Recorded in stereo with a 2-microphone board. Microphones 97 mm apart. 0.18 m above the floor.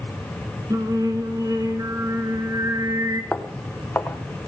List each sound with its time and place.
0.7 s singing: 35° right (ahead or behind), 1.3 m
3.3 s footsteps: 20° left (ahead or behind), 1.1 m